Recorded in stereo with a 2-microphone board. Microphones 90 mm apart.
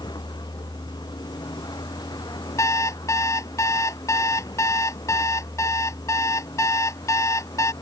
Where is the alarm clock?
35° left (ahead or behind).